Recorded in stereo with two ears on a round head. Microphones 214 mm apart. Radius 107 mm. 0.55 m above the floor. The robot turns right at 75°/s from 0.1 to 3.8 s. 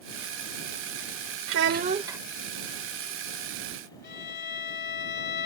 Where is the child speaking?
60° right; by 2.2 s 5° right.